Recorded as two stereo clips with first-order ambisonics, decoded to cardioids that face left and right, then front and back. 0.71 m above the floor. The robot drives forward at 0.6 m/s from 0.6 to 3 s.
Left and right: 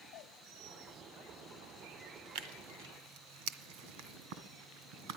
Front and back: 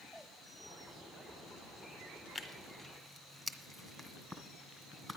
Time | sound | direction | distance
2.4 | tearing paper | 90° right | 1.7 m